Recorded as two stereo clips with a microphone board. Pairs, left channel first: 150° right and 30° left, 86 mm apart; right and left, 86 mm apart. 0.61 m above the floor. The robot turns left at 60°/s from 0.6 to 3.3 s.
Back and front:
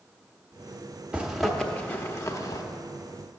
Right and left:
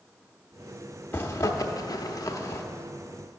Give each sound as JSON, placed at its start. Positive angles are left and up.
{"t": 1.1, "sound": "a zipper", "azimuth_deg": -40, "distance_m": 0.8}